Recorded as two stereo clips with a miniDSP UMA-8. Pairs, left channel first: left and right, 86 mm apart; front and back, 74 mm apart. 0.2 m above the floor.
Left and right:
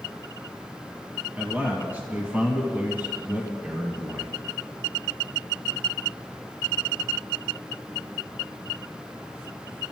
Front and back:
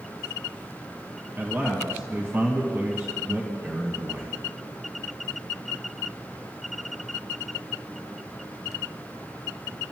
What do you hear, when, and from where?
1.4 s a man speaking: 145° right, 1.9 m